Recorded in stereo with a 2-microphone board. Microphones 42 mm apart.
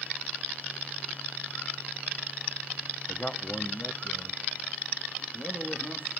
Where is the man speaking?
15° left (ahead or behind), 0.7 m; by 6.1 s 60° left (ahead or behind), 2.5 m.